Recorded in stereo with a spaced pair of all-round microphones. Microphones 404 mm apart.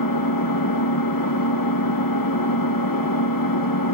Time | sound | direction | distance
0.0 | an engine running | 55° left (ahead or behind) | 0.8 m